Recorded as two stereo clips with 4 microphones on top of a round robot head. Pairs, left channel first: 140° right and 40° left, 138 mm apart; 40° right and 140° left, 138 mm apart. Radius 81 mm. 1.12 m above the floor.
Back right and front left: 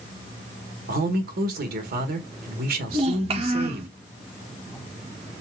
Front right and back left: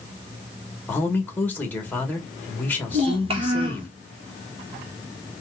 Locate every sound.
0.9 s a man speaking: 35° left, 1.3 m
2.9 s a child speaking: 85° left, 0.8 m